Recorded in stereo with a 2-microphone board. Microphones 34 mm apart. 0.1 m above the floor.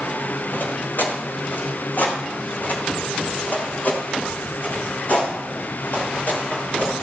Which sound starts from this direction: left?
Footsteps, at 0.5 s.